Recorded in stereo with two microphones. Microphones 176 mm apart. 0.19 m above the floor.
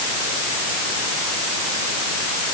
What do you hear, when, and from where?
Only background noise.